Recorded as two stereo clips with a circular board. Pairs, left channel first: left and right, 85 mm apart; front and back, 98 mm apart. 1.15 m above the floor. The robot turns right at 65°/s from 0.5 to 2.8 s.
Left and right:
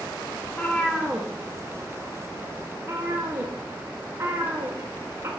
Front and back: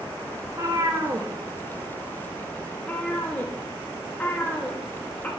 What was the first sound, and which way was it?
A cat meowing, 145° left.